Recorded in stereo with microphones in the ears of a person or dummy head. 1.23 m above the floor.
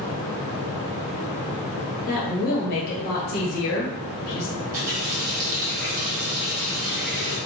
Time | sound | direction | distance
2.1 | a woman speaking | 50° left (ahead or behind) | 1.0 m
4.6 | a running tap | 45° right (ahead or behind) | 1.2 m